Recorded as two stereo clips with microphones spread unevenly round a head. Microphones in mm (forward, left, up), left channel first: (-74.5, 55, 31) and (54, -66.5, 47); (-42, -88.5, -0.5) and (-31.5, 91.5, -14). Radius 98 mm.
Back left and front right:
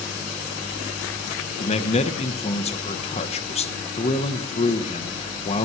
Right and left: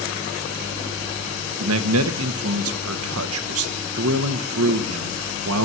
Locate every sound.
1.6 s a man speaking: 80° left, 1.1 m